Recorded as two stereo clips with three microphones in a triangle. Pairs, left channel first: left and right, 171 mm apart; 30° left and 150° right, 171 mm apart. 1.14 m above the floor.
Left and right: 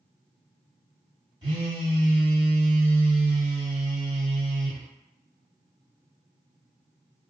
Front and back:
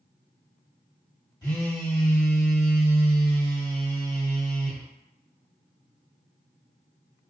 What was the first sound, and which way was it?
A phone buzzing, 35° right.